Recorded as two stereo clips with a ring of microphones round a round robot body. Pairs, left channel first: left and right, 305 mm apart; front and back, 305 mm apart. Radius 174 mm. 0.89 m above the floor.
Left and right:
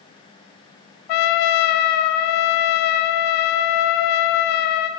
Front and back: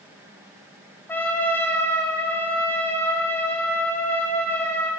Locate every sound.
1.1 s a trumpet: 85° left, 0.9 m